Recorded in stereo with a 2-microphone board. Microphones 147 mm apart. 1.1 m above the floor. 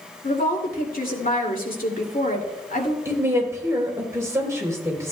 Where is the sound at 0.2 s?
75° left (ahead or behind), 2.5 m.